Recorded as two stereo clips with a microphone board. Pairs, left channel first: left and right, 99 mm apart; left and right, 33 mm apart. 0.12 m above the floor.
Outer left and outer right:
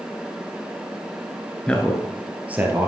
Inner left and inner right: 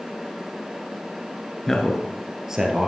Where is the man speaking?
10° left (ahead or behind), 1.4 m; by 2.9 s 20° right (ahead or behind), 2.5 m.